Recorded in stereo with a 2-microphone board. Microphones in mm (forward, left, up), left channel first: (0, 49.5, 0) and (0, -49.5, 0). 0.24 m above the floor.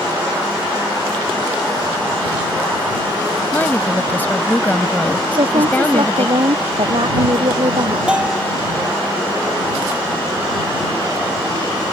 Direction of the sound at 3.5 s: 20° left (ahead or behind).